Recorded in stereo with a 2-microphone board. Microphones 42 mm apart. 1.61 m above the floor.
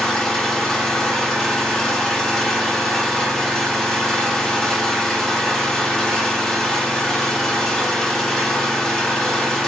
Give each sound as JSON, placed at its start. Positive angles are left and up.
{"t": 0.0, "sound": "an engine running", "side_deg": 10, "distance_m": 0.7}